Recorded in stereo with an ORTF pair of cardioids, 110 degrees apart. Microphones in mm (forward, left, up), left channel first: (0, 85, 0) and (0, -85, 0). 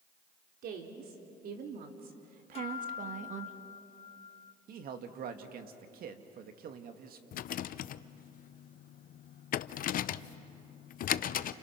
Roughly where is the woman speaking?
Ahead right.